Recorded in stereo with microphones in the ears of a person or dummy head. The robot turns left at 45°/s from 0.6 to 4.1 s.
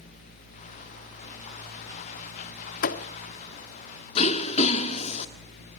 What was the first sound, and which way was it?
A thud, 55° left (ahead or behind).